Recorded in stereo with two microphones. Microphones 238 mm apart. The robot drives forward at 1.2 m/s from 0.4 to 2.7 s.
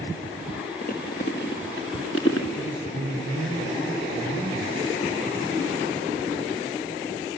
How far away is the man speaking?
About 3.5 m.